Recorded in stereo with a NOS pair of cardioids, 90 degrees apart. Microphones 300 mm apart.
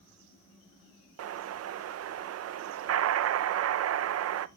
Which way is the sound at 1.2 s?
55° right.